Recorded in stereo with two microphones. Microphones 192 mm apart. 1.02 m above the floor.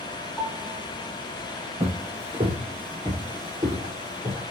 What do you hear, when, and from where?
0.4 s a piano: 10° left (ahead or behind), 2 m
1.8 s footsteps: 35° right (ahead or behind), 1.2 m; by 4.4 s 20° right (ahead or behind), 2.5 m